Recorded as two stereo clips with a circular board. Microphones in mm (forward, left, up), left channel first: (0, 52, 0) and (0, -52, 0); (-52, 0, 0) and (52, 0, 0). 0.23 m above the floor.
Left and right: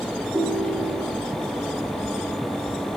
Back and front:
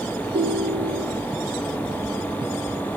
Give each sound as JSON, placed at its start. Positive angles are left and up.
{"t": 0.3, "sound": "a ringtone", "azimuth_deg": -25, "distance_m": 1.3}